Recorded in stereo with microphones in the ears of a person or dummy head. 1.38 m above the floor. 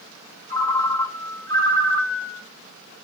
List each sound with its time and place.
0.5 s a ringtone: 20° left (ahead or behind), 1.2 m